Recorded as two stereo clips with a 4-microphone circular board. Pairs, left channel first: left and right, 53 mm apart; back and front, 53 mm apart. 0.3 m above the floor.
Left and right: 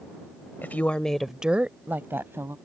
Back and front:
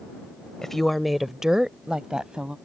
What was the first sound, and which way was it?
A woman speaking, 105° left.